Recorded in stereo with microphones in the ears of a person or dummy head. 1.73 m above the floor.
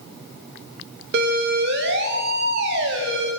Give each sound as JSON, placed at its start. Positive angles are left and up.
{"t": 1.1, "sound": "a siren", "side_deg": -60, "distance_m": 3.5}